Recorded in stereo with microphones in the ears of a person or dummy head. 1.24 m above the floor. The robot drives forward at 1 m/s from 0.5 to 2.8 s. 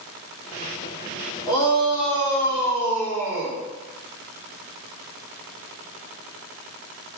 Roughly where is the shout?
Left.